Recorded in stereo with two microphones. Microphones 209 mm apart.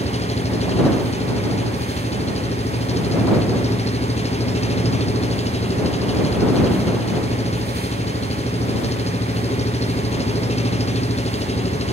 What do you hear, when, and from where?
0.0 s an engine running: 30° left (ahead or behind)